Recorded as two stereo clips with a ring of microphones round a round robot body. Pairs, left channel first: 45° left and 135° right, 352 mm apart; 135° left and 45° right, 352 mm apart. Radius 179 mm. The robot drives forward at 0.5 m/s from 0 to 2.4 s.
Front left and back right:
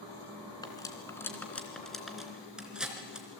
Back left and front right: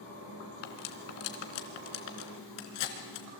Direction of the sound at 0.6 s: 125° left.